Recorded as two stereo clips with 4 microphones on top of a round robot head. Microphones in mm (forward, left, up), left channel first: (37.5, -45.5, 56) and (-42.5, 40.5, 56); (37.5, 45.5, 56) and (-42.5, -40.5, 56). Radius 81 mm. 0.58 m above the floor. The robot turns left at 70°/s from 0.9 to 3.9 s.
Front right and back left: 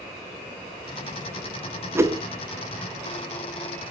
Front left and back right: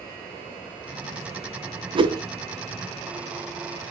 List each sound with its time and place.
1.9 s a whoosh: 160° right, 0.8 m; by 2.2 s straight behind, 0.8 m